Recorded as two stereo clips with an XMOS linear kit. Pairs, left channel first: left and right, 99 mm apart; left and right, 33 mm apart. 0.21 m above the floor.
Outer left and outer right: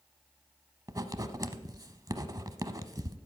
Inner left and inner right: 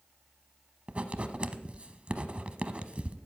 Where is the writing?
40° right (ahead or behind), 0.7 m.